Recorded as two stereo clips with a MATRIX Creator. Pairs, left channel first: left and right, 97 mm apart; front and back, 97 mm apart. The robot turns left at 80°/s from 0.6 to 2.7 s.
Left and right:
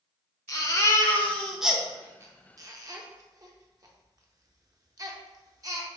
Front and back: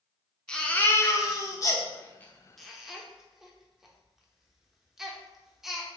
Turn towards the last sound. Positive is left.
turn(degrees=-95)